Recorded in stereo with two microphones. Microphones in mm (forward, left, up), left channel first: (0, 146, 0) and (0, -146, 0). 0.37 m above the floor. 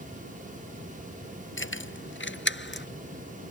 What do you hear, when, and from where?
1.6 s keys jangling: 45° left (ahead or behind); by 2.9 s 40° left (ahead or behind)